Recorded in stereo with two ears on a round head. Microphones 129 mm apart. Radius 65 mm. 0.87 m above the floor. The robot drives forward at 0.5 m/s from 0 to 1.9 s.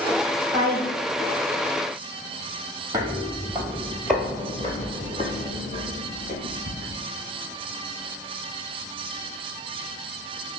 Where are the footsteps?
25° right (ahead or behind), 1.0 m; by 7.0 s 45° left (ahead or behind), 1.9 m.